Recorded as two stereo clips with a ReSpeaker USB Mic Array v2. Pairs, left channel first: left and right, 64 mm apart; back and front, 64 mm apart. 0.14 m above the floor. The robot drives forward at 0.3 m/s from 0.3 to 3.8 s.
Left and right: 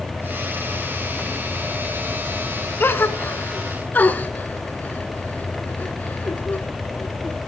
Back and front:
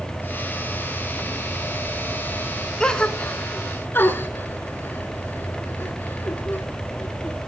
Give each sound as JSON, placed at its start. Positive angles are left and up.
{"t": 2.8, "sound": "a gasp", "azimuth_deg": 110, "distance_m": 0.7}